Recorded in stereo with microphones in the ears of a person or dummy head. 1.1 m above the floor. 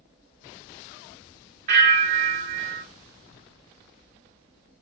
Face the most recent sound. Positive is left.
turn(degrees=-55)  # may be behind; listen again after turning